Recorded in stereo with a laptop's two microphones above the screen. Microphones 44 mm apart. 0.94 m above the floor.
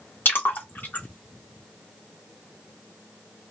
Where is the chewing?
I don't hear chewing.